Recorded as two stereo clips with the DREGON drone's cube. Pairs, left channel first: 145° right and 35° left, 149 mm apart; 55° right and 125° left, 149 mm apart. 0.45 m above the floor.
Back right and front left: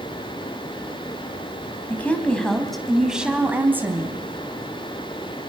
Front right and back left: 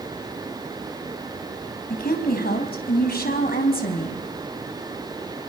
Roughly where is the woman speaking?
Right.